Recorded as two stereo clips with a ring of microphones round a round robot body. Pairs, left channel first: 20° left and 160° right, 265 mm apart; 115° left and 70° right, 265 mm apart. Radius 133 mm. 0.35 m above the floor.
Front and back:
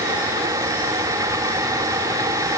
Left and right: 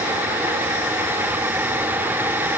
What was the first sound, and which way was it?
Only background noise.